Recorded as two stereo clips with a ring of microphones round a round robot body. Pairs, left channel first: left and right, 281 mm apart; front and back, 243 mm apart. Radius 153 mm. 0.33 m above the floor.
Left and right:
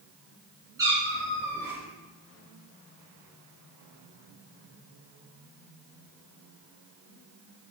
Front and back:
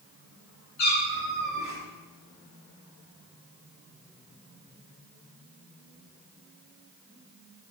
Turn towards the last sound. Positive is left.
turn(degrees=-10)